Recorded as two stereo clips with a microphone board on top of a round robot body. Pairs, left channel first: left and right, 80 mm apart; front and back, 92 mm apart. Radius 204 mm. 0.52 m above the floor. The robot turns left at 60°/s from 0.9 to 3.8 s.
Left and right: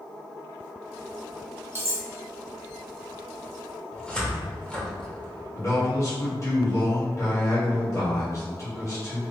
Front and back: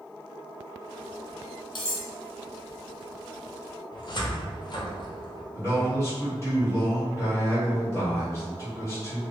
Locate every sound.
1.8 s cutlery clinking: 30° right, 1.3 m; by 2.0 s 45° right, 1.3 m
3.9 s a cupboard door: 15° left, 1.0 m
5.5 s a man speaking: 50° left, 1.9 m